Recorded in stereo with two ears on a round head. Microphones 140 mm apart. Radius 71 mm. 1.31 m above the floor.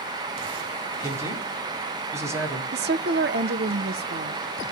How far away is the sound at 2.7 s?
About 0.7 m.